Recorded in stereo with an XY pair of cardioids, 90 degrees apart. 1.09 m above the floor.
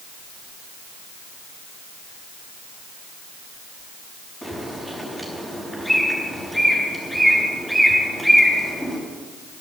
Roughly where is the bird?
Ahead.